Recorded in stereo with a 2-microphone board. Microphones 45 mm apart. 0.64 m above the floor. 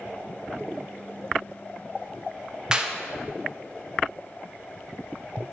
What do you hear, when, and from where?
2.7 s a clap: 20° right (ahead or behind), 0.5 m